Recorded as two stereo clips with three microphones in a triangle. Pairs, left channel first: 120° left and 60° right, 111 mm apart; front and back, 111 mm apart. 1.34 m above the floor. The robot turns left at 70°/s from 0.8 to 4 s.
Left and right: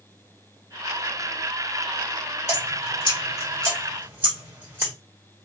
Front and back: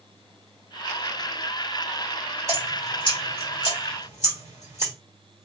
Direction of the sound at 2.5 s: 120° left.